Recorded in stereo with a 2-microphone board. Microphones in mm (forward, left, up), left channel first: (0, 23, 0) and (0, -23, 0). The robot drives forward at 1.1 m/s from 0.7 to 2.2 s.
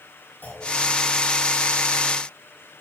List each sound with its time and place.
0.4 s a clunk: 45° left (ahead or behind), 5 m